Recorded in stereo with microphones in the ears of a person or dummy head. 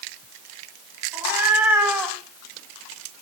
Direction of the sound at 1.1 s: 15° right (ahead or behind).